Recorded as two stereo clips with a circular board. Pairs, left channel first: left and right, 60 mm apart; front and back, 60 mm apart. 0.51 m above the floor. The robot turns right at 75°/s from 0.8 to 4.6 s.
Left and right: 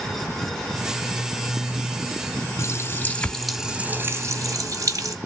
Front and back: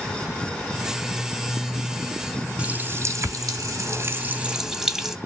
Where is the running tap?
115° left, 0.7 m; by 5.2 s 95° right, 0.7 m.